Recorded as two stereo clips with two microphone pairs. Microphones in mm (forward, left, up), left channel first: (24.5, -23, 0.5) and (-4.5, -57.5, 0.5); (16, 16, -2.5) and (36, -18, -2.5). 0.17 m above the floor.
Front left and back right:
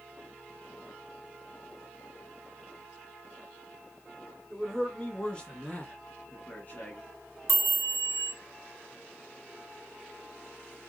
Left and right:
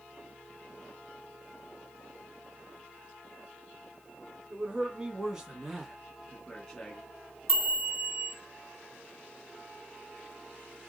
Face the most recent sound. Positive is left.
turn(degrees=40)